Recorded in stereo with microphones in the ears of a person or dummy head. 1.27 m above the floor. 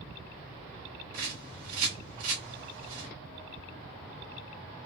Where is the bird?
40° right (ahead or behind), 2 m.